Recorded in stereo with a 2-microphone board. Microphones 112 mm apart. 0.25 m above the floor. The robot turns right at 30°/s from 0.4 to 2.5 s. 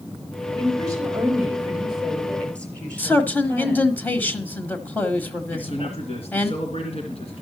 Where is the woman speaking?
45° right, 4.5 m; by 4.0 s 10° left, 4.5 m.